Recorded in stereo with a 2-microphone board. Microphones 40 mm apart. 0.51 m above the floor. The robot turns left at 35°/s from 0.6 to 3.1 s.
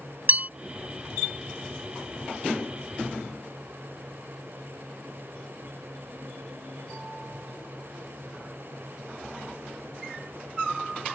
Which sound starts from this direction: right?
A bell, at 0.3 s.